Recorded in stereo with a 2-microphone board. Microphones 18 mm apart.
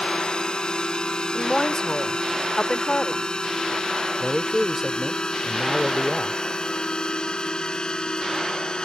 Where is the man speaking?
10° right (ahead or behind).